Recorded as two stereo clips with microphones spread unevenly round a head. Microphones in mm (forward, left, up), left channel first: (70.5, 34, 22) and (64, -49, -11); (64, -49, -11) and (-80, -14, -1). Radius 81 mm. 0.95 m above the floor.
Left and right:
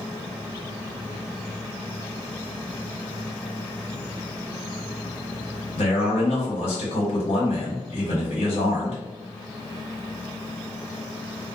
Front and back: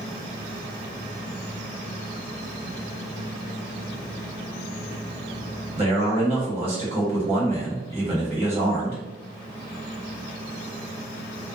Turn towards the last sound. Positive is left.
turn(degrees=110)